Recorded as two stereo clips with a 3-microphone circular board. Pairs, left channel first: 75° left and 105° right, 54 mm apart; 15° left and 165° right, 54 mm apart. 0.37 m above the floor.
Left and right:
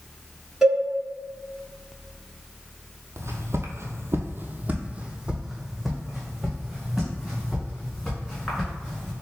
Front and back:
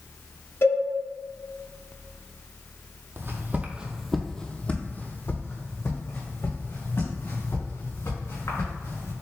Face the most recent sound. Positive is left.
turn(degrees=-5)